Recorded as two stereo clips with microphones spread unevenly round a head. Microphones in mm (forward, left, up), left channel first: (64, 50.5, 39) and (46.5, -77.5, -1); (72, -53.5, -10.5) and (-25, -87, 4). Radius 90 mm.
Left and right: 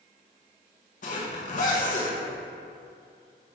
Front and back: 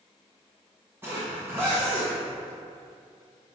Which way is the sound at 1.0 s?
120° left.